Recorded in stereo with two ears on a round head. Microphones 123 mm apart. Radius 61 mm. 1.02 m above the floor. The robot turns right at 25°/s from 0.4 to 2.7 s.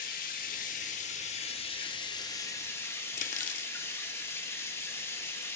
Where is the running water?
105° left, 1.3 m; by 5.6 s 160° left, 1.3 m.